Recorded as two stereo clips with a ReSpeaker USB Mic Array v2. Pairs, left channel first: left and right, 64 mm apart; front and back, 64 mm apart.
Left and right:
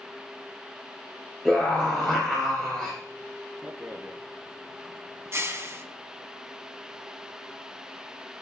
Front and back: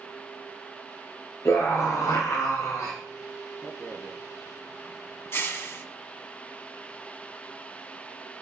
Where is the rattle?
45° right, 1.6 m.